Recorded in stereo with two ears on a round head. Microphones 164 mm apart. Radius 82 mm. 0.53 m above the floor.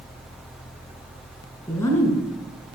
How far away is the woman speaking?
About 6 m.